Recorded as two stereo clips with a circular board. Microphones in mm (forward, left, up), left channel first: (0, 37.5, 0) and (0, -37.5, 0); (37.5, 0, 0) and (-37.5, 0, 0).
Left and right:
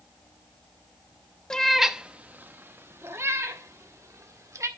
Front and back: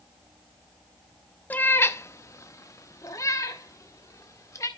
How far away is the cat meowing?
About 0.5 m.